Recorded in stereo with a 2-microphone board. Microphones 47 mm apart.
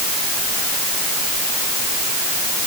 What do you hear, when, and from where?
Only background noise.